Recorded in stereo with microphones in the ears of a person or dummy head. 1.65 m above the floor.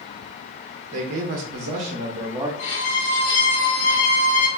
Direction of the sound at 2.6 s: 40° left (ahead or behind).